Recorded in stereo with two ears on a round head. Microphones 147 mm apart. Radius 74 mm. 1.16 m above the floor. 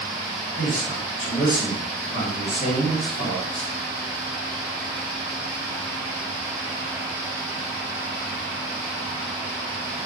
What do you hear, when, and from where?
0.6 s a man speaking: 50° left (ahead or behind), 1.3 m